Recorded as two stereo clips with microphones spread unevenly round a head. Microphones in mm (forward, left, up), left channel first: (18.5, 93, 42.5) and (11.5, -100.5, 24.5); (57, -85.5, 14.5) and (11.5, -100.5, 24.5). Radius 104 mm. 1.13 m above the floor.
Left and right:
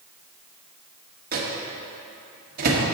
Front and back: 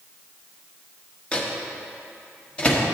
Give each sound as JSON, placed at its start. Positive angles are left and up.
{"t": 1.3, "sound": "a microwave", "azimuth_deg": -50, "distance_m": 1.2}